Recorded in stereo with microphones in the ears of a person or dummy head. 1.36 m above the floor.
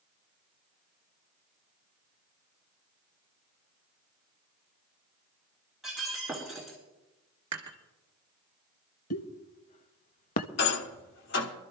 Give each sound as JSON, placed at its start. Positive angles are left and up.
{"t": 5.8, "sound": "breaking glass", "side_deg": 0, "distance_m": 3.5}
{"t": 7.5, "sound": "dishes clattering", "side_deg": -25, "distance_m": 1.8}
{"t": 9.1, "sound": "a pop", "side_deg": 50, "distance_m": 0.6}
{"t": 10.6, "sound": "a rattle", "side_deg": 50, "distance_m": 1.0}